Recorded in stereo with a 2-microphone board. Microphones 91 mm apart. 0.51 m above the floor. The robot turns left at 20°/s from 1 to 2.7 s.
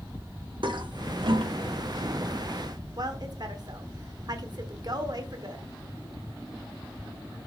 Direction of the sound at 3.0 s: 50° right (ahead or behind).